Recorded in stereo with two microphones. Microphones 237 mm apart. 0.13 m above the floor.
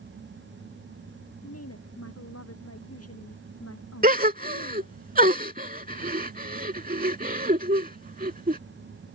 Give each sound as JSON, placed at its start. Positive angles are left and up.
{"t": 1.4, "sound": "a woman speaking", "side_deg": 80}
{"t": 4.0, "sound": "a gasp", "side_deg": -35}